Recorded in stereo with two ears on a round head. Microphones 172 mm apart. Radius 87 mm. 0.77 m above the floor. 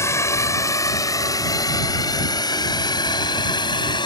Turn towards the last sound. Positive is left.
turn(degrees=25)  # may be behind; listen again after turning